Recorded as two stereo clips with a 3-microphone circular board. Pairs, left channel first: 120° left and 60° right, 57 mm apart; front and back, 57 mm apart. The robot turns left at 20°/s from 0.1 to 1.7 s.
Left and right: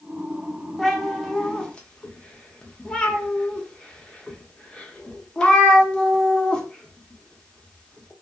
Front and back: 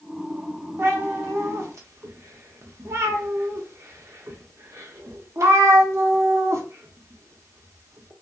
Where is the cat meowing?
155° right, 0.6 m; by 8.1 s 170° right, 0.6 m.